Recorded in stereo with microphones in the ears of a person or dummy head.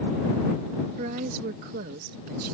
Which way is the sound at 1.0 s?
50° right (ahead or behind).